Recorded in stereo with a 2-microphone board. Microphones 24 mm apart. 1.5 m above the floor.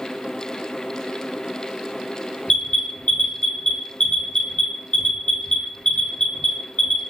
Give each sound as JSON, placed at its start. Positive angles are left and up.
{"t": 2.5, "sound": "an alarm", "side_deg": 45, "distance_m": 2.5}